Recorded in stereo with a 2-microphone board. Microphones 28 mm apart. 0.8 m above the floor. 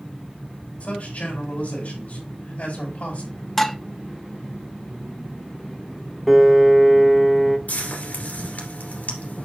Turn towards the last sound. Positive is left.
turn(degrees=65)  # may be behind; listen again after turning